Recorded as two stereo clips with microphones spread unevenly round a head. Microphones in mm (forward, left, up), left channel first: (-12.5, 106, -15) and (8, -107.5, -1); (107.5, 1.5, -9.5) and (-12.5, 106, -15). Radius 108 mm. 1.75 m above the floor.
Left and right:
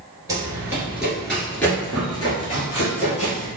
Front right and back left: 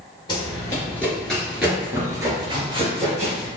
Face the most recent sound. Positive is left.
turn(degrees=130)